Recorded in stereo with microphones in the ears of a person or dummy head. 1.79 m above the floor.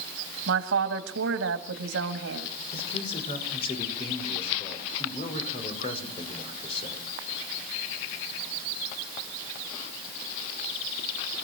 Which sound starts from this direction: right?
A woman speaking, at 0.5 s.